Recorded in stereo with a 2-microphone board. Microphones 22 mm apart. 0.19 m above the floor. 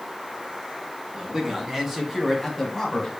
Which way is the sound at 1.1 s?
35° right (ahead or behind).